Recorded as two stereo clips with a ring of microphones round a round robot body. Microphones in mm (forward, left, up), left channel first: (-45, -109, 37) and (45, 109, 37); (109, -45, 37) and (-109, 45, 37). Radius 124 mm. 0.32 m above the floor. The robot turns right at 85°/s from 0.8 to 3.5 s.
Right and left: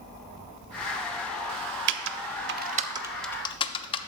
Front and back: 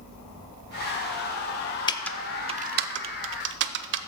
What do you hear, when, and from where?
1.9 s typing on a keyboard: 45° left, 0.5 m; by 4.0 s straight behind, 0.5 m